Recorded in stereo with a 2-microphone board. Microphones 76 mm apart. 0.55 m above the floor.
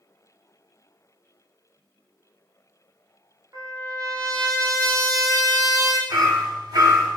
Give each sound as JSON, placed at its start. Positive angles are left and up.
{"t": 3.5, "sound": "a trumpet", "side_deg": -40, "distance_m": 0.8}
{"t": 6.1, "sound": "hammering", "side_deg": -55, "distance_m": 0.8}